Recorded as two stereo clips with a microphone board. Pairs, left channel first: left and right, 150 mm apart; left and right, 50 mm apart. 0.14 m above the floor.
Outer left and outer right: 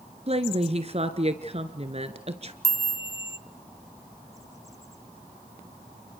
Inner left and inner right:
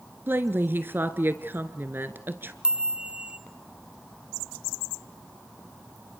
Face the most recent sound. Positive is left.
turn(degrees=-20)  # may be behind; listen again after turning